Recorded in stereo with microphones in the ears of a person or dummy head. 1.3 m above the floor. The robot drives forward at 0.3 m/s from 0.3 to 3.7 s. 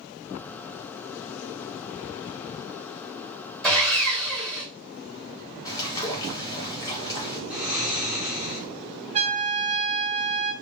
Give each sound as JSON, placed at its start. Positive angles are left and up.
{"t": 3.6, "sound": "sawing", "side_deg": 5, "distance_m": 1.8}
{"t": 5.7, "sound": "a bird", "side_deg": 20, "distance_m": 0.8}
{"t": 7.5, "sound": "snoring", "side_deg": 0, "distance_m": 1.2}
{"t": 9.1, "sound": "a trumpet", "side_deg": -35, "distance_m": 0.8}